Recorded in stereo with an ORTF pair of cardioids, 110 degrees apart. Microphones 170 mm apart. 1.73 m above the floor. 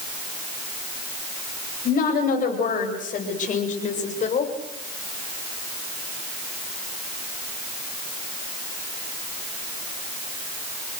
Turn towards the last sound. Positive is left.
turn(degrees=45)